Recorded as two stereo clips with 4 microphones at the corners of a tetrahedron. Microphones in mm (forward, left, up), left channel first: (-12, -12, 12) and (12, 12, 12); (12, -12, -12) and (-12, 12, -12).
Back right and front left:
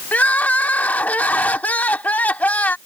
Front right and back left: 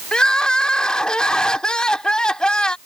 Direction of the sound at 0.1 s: 110° right.